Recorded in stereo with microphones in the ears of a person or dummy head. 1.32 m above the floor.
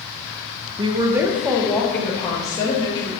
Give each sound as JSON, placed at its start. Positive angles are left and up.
{"t": 0.8, "sound": "a woman speaking", "side_deg": -30, "distance_m": 0.9}